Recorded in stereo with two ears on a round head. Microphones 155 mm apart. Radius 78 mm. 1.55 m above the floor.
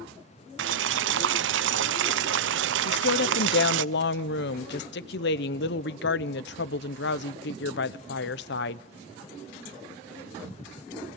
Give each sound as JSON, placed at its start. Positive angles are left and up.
{"t": 0.6, "sound": "boiling", "side_deg": -75, "distance_m": 0.7}
{"t": 2.9, "sound": "a woman speaking", "side_deg": 70, "distance_m": 0.8}